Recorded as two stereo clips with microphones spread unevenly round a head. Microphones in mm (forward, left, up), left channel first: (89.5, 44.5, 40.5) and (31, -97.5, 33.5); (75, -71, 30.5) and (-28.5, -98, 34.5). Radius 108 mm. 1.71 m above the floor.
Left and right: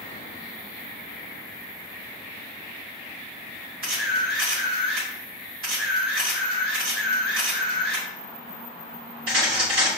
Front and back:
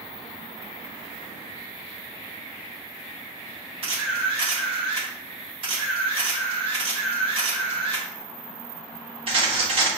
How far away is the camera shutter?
About 1.0 m.